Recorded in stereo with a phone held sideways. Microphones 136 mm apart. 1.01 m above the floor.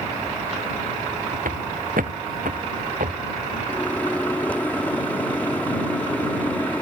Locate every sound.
1.4 s footsteps: 80° right
3.7 s a microwave: 10° left (ahead or behind)